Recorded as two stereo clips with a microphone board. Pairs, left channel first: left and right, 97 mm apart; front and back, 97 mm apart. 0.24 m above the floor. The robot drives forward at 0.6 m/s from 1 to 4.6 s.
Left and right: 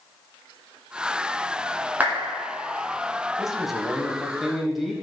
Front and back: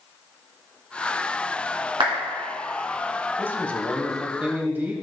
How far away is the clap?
About 2.5 m.